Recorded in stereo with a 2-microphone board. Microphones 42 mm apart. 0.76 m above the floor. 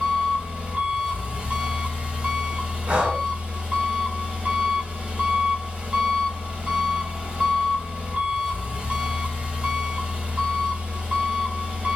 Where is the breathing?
35° right (ahead or behind), 1.4 m.